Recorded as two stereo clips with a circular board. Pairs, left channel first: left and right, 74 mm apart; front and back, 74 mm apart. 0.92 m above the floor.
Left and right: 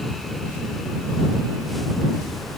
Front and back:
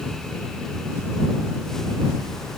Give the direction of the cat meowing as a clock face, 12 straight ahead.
No cat meowing in this recording.